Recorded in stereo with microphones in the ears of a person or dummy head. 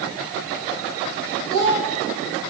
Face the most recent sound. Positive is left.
turn(degrees=-65)  # may be behind; listen again after turning